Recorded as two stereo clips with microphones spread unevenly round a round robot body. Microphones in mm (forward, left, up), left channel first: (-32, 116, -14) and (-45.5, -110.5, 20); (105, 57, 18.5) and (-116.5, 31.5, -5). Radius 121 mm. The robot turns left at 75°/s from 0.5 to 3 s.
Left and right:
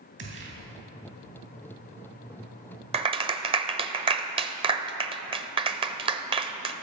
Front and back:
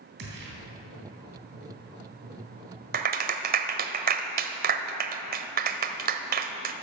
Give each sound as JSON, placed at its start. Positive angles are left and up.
{"t": 0.2, "sound": "a gunshot", "azimuth_deg": -135, "distance_m": 3.0}
{"t": 2.9, "sound": "a clap", "azimuth_deg": -160, "distance_m": 0.8}